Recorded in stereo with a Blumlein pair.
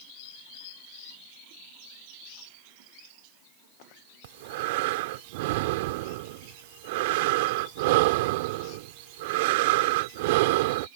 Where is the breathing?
50° right.